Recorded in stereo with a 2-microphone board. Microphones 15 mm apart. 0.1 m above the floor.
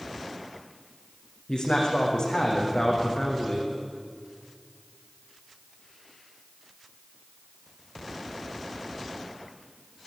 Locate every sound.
1.5 s a man speaking: 70° left (ahead or behind), 7.5 m